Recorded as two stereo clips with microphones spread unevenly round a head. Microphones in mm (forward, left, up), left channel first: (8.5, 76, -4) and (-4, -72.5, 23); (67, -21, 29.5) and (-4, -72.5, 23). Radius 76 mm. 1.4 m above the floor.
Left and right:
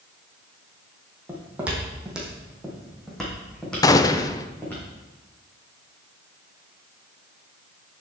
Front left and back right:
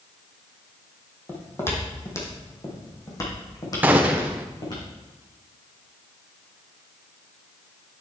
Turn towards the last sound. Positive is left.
turn(degrees=145)